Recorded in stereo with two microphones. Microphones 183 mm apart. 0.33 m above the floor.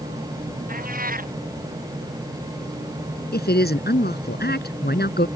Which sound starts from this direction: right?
A cat meowing, at 0.7 s.